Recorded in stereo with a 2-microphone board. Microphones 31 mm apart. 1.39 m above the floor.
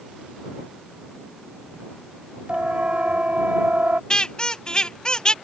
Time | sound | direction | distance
2.5 | a siren | 45° right (ahead or behind) | ?
4.1 | a squeak | 25° left (ahead or behind) | ?